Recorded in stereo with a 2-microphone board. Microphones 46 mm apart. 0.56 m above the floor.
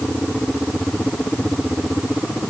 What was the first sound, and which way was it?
Only background noise.